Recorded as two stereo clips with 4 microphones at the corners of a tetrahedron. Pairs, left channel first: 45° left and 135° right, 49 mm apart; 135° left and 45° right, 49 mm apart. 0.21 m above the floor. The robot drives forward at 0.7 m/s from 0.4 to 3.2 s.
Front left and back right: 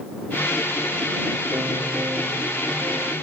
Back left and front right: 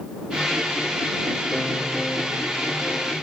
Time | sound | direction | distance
1.5 | a piano | 150° right | ?